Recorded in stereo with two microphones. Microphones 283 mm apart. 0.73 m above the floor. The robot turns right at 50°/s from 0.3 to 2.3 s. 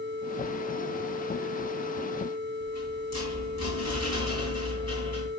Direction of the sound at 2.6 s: 65° left (ahead or behind).